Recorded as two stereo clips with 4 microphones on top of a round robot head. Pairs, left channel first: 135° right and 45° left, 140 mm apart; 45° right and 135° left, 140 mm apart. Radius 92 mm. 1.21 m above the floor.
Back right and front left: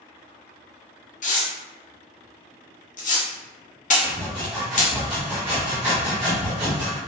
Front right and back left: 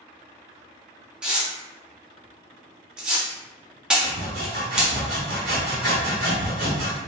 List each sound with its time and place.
1.2 s tearing paper: 145° right, 0.9 m
4.0 s sawing: 130° left, 1.1 m